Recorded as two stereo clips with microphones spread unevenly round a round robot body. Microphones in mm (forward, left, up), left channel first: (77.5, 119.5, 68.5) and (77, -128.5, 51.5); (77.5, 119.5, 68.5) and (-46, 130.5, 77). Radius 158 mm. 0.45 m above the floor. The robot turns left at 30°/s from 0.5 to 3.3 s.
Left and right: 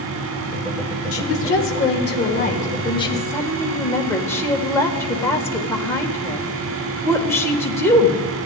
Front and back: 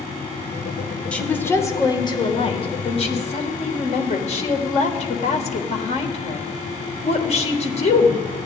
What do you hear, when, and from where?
1.1 s a woman speaking: 75° left, 1.5 m; by 8.2 s 10° left, 1.5 m